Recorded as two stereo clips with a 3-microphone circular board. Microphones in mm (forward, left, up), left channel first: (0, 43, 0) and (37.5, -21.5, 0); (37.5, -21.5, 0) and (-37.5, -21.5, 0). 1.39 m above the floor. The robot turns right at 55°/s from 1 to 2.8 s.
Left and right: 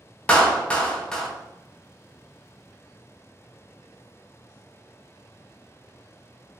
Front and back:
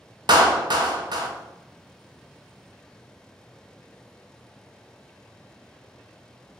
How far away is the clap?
About 0.6 m.